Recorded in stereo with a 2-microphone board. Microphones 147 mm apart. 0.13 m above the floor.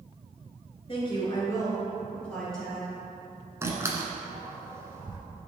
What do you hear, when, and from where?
0.9 s a woman speaking: 40° left (ahead or behind), 2.5 m; by 3.0 s 5° right (ahead or behind), 3.5 m
3.6 s a door slam: 20° right (ahead or behind), 1.1 m